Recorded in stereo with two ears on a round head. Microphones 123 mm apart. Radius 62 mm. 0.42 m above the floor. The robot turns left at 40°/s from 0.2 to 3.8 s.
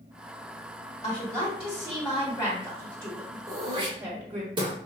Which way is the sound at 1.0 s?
90° left.